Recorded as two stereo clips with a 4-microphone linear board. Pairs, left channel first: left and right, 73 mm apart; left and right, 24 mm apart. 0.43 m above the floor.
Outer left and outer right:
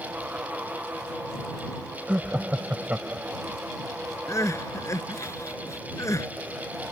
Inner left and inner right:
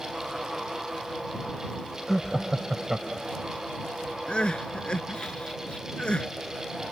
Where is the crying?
45° left (ahead or behind).